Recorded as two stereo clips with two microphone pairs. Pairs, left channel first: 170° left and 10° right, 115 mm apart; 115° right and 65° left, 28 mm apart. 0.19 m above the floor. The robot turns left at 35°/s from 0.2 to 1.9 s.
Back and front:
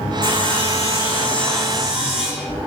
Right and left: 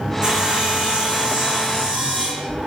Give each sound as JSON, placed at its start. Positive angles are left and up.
{"t": 0.2, "sound": "sawing", "azimuth_deg": 130, "distance_m": 4.0}